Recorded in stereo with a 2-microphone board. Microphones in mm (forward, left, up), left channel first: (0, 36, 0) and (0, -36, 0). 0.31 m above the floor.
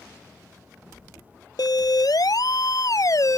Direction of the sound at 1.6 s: 65° left (ahead or behind).